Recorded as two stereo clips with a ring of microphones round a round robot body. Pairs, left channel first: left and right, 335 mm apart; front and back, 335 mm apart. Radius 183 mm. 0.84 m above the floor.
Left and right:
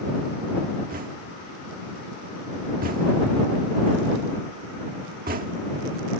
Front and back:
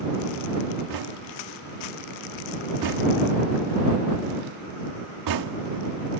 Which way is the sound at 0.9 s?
155° right.